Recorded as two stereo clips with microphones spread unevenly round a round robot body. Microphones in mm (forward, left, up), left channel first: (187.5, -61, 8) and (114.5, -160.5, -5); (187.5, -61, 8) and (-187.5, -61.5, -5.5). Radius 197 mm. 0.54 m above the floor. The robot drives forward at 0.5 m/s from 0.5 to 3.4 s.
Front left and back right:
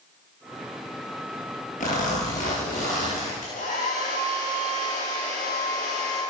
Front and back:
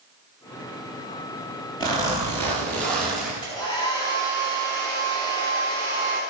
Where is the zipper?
80° left, 4 m; by 3.3 s 90° left, 4 m.